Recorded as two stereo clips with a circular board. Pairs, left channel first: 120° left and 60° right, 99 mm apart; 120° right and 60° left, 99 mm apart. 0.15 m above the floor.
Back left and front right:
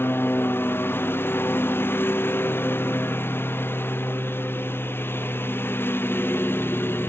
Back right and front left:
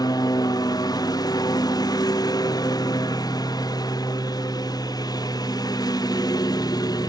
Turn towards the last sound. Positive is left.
turn(degrees=-170)